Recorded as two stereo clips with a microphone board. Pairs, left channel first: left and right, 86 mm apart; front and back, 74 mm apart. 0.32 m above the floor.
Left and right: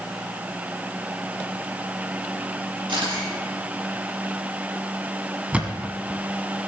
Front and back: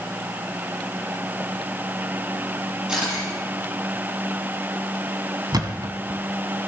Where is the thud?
165° right, 1.2 m.